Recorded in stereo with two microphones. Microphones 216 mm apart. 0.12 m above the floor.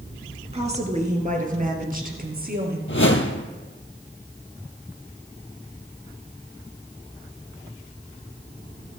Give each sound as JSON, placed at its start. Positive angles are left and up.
{"t": 0.5, "sound": "a woman speaking", "side_deg": -30, "distance_m": 1.8}
{"t": 2.9, "sound": "a whoosh", "side_deg": 65, "distance_m": 0.9}